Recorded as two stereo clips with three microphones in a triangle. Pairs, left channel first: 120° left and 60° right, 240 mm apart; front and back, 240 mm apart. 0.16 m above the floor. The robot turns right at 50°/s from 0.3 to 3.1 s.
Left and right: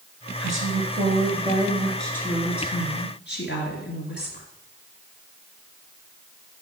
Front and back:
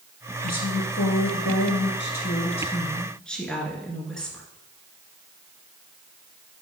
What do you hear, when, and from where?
0.4 s a woman speaking: 50° right, 2.0 m; by 4.5 s 85° left, 2.0 m